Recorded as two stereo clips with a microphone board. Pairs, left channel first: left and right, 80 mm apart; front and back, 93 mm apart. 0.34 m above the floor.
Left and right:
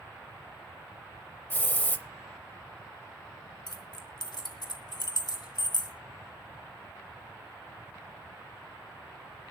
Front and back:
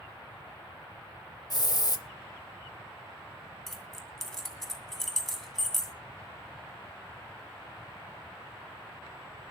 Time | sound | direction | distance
1.5 | a hiss | 30° left | 0.7 m
3.7 | keys jangling | 90° left | 1.9 m